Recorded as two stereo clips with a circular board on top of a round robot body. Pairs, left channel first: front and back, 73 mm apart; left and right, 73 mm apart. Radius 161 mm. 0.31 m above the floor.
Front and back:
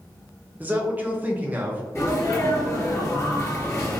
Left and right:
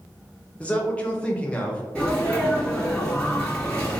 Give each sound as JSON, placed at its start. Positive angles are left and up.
{"t": 0.6, "sound": "a man speaking", "azimuth_deg": 140, "distance_m": 0.9}
{"t": 1.9, "sound": "a sneeze", "azimuth_deg": 25, "distance_m": 1.7}